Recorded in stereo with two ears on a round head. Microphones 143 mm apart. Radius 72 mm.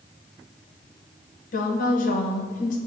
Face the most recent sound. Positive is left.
turn(degrees=55)  # may be behind; listen again after turning